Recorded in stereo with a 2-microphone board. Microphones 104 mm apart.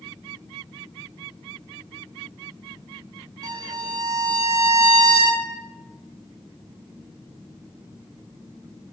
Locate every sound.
3.4 s a violin: 40° right (ahead or behind), 0.7 m